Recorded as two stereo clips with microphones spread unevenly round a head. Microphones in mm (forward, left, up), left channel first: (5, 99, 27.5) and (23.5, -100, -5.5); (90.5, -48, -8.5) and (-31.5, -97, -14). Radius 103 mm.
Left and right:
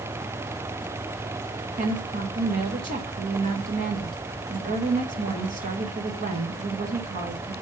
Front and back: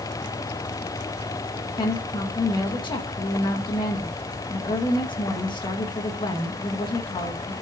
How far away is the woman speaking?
About 1.4 m.